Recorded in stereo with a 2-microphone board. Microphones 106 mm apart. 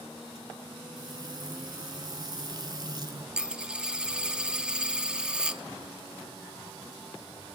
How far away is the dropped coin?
About 0.6 m.